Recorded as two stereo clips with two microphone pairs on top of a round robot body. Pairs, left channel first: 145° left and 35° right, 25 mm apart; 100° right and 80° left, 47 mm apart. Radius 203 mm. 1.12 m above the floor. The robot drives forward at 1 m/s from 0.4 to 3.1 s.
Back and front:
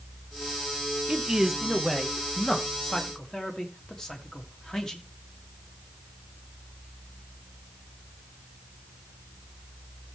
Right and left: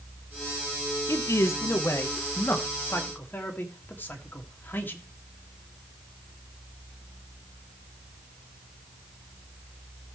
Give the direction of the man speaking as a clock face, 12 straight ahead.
3 o'clock.